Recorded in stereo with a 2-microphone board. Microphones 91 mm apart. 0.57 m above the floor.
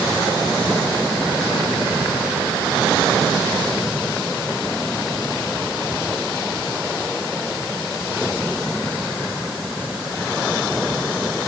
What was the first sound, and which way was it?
Only background noise.